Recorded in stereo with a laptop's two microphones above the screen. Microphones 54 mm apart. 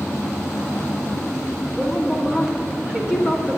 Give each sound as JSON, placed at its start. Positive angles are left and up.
{"t": 1.8, "sound": "a woman speaking", "side_deg": -20, "distance_m": 1.7}